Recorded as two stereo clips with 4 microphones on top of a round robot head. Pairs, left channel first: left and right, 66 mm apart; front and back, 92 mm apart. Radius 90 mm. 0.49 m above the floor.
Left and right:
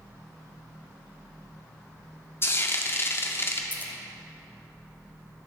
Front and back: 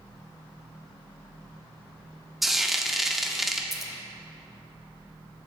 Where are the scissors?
95° left, 1.3 m.